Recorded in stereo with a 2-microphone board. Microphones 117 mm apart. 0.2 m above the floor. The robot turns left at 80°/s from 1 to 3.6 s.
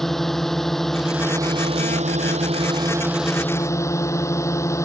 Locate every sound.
0.0 s a drone: straight ahead; by 4.8 s 155° left